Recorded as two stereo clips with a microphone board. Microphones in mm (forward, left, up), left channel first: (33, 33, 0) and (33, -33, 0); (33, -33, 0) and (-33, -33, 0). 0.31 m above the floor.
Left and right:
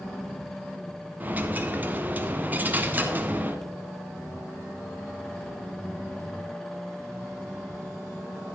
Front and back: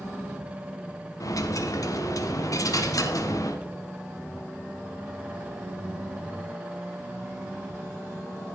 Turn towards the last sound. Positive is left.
turn(degrees=-25)